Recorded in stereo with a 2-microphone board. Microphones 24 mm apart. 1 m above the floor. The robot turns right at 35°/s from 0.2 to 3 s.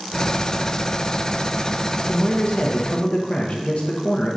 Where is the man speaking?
85° left, 0.9 m; by 4.4 s 120° left, 0.9 m.